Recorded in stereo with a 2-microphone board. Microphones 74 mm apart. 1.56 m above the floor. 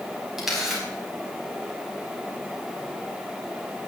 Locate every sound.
0.4 s a camera shutter: 5° right (ahead or behind), 5 m